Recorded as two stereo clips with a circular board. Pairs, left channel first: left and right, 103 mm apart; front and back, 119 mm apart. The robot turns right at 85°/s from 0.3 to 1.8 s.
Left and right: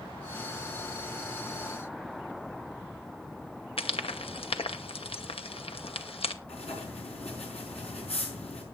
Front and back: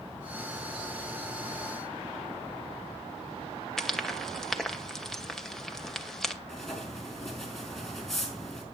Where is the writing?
90° left, 4.5 m.